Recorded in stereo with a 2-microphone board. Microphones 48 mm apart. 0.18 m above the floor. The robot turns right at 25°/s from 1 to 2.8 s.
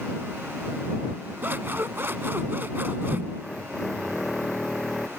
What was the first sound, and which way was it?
Scissors, 105° right.